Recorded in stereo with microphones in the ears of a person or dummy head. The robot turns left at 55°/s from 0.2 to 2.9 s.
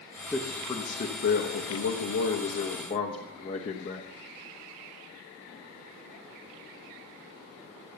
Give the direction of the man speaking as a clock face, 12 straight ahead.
6 o'clock.